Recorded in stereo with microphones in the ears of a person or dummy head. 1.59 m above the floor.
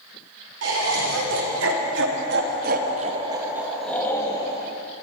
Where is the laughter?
85° right, 4.5 m; by 4.5 s 30° left (ahead or behind), 2.5 m.